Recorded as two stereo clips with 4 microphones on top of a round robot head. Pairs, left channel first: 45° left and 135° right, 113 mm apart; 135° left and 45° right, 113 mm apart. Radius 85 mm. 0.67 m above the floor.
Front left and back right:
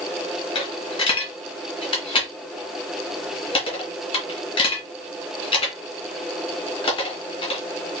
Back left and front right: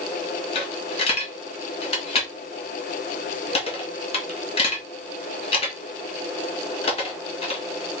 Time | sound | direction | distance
0.6 | a dropped coin | 90° left | 1.8 m